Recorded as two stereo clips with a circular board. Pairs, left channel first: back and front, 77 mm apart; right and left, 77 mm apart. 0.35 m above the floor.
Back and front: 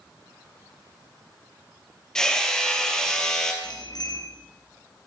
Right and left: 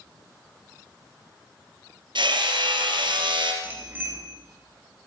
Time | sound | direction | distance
2.1 | hammering | 100° left | 3 m
3.6 | a bicycle bell | 155° left | 3.5 m